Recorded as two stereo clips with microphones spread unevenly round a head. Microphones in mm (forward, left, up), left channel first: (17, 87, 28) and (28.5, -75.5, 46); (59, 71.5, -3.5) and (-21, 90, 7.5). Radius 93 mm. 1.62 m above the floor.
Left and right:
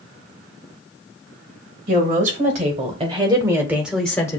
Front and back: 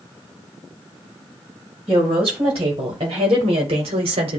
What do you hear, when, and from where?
1.9 s a woman speaking: 135° right, 1.8 m; by 4.4 s 165° left, 0.9 m